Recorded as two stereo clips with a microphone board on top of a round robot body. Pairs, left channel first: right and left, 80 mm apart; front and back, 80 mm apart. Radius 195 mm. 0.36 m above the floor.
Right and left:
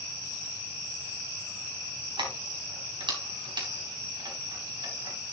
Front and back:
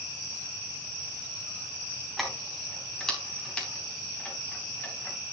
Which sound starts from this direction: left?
Keys jangling, at 2.2 s.